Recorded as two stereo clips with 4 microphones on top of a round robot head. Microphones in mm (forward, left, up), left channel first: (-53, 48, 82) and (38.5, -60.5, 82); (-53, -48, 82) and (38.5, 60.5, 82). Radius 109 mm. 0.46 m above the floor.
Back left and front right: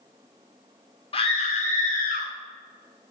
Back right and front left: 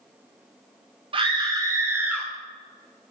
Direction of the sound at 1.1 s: 90° left.